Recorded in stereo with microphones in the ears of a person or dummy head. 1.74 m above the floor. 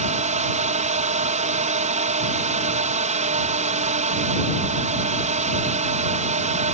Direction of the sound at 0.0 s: 40° right (ahead or behind).